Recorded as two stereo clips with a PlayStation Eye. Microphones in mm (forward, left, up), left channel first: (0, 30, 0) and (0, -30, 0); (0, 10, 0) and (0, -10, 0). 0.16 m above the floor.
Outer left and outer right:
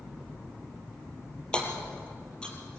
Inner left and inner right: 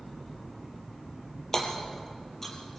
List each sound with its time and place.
1.5 s hammering: 15° left (ahead or behind), 4 m